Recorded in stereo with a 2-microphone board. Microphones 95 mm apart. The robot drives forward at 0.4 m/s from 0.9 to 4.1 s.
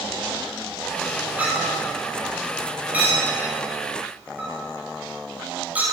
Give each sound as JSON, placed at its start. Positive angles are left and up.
{"t": 1.4, "sound": "a clink", "side_deg": -15, "distance_m": 9.5}